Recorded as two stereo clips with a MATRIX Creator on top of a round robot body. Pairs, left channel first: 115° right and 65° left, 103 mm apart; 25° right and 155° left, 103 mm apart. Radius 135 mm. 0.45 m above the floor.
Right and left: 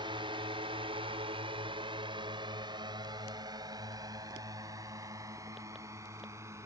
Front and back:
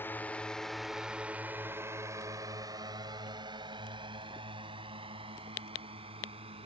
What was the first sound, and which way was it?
A drone, 45° left.